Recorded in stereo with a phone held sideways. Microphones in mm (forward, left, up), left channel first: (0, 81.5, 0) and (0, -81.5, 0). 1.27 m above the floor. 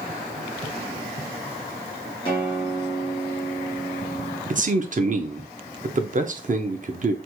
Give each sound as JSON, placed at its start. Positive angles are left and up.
{"t": 2.2, "sound": "a guitar", "side_deg": 30, "distance_m": 1.9}
{"t": 4.5, "sound": "a man speaking", "side_deg": -50, "distance_m": 0.6}